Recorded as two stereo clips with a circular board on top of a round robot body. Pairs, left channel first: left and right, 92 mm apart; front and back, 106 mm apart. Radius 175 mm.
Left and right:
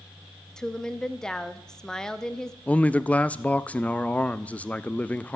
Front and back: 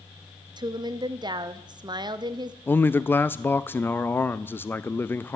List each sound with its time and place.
0.6 s a woman speaking: 170° left, 1.0 m
2.7 s a man speaking: 35° left, 0.6 m